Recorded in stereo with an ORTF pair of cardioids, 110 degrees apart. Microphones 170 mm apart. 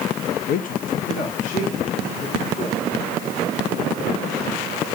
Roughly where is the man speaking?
Ahead left.